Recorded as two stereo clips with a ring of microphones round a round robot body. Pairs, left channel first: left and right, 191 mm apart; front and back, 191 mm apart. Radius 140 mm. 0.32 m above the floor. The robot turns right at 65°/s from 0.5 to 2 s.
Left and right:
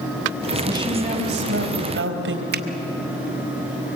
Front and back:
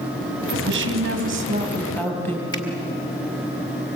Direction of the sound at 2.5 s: 70° right.